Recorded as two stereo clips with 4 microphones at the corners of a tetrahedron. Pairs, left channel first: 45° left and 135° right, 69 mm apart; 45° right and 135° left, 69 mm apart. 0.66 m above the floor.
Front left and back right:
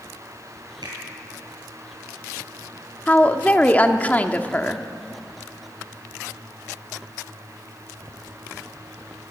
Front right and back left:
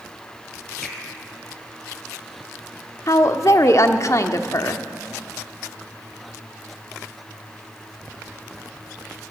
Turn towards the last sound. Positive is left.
turn(degrees=-20)